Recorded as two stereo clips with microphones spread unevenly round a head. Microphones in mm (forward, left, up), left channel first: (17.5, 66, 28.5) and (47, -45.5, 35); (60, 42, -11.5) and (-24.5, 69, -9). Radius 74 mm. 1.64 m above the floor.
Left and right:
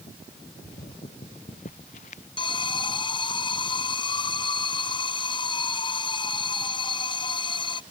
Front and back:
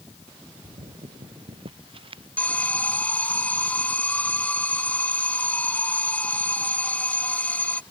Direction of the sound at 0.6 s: 145° left.